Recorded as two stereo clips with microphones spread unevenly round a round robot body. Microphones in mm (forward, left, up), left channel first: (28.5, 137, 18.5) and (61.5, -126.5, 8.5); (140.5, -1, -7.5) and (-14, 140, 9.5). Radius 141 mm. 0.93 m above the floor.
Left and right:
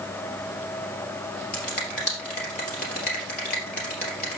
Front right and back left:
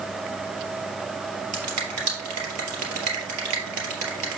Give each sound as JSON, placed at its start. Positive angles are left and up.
{"t": 1.5, "sound": "a finger snap", "azimuth_deg": 155, "distance_m": 3.0}